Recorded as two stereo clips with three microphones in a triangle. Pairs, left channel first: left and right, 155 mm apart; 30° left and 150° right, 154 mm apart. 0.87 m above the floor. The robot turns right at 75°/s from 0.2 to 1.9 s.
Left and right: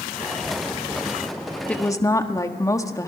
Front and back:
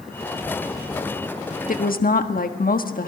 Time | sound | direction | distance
1.7 | a woman speaking | 5° left | 1.4 m